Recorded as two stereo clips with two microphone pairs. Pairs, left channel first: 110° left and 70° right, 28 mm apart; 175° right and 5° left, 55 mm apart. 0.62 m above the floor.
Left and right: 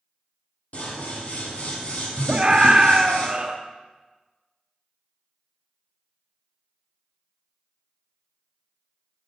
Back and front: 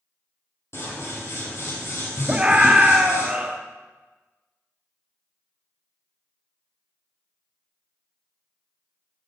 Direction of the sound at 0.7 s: 150° left.